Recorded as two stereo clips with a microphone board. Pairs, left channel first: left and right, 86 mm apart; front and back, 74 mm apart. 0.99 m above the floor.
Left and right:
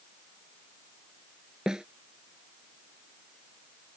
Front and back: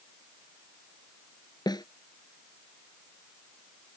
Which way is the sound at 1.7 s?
10° right.